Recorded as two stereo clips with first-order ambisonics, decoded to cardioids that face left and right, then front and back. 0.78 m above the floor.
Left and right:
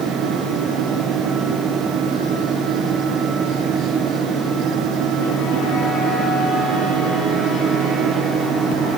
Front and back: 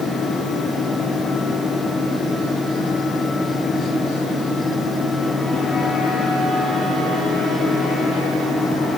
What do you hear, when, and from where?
Only background noise.